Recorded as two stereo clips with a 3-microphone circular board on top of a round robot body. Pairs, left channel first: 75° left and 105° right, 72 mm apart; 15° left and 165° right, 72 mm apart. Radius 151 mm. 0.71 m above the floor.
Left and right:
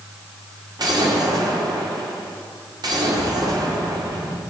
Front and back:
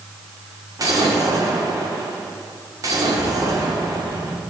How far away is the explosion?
About 3 m.